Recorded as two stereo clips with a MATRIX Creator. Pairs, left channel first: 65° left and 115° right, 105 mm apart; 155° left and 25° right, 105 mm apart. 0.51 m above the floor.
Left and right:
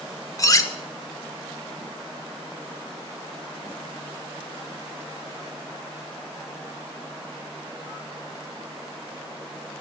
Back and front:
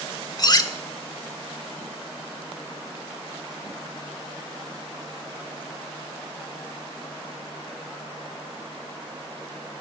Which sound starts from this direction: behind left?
Cutlery clinking, at 0.4 s.